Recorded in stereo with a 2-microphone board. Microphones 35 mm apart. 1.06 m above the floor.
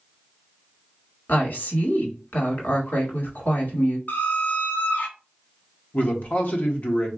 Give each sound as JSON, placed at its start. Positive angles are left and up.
{"t": 1.3, "sound": "a woman speaking", "side_deg": 65, "distance_m": 1.5}
{"t": 4.1, "sound": "a squeak", "side_deg": 60, "distance_m": 0.7}
{"t": 5.9, "sound": "a man speaking", "side_deg": 50, "distance_m": 1.0}